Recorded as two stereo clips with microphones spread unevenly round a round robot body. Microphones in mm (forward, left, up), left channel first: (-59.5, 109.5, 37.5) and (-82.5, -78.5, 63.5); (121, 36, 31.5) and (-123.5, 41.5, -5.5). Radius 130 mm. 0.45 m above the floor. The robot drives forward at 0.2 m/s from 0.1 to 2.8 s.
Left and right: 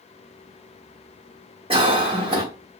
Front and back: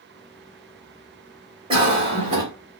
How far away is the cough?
About 1.1 m.